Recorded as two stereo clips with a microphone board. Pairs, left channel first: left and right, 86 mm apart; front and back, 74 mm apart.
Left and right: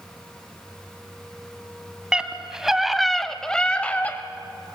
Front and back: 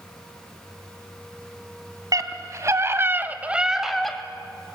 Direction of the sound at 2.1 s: 170° right.